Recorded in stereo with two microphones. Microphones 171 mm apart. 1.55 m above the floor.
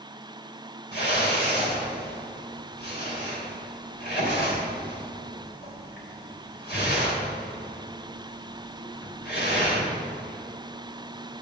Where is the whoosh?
75° left (ahead or behind), 3.5 m.